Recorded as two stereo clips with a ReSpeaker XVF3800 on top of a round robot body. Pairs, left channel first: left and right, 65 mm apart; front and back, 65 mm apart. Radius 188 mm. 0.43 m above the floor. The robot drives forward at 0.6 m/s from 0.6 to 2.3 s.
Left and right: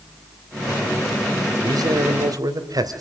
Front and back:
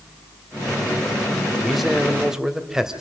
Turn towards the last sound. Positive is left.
turn(degrees=-95)